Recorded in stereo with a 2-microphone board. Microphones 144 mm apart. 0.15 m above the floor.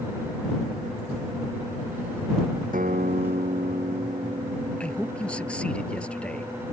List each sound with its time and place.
2.7 s a guitar: 70° right (ahead or behind)
4.8 s a man speaking: 10° left (ahead or behind)